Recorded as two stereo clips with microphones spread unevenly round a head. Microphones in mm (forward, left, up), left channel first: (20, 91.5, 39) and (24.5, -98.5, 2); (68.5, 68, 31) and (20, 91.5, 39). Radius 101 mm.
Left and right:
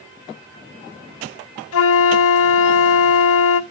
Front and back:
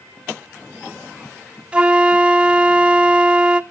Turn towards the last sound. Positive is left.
turn(degrees=80)